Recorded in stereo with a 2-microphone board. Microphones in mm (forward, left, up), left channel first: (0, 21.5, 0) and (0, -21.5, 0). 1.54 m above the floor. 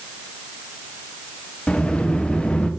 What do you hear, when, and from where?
1.7 s a sliding door: 25° left (ahead or behind), 0.6 m